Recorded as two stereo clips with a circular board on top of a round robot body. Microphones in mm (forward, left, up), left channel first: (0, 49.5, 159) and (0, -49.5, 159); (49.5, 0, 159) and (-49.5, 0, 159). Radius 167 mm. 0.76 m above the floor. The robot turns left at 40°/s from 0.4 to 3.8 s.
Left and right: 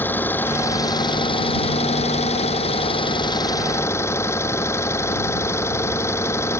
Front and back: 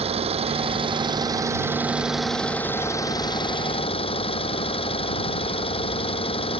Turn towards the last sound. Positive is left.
turn(degrees=25)